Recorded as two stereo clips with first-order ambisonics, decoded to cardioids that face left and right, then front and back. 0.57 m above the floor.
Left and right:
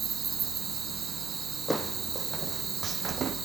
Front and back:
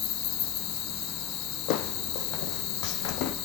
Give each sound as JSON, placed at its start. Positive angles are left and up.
{"t": 0.0, "sound": "an insect", "azimuth_deg": -25, "distance_m": 1.4}
{"t": 1.7, "sound": "footsteps", "azimuth_deg": 5, "distance_m": 1.4}